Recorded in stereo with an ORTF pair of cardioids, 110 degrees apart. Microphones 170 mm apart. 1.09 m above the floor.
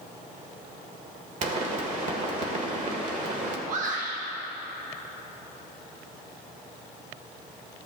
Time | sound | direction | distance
1.4 | a pop | 50° right | 1.6 m
3.7 | a shout | 55° right | 1.3 m